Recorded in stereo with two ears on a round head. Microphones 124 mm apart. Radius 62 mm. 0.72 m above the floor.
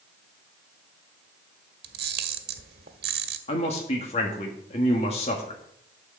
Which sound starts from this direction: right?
A camera shutter, at 1.8 s.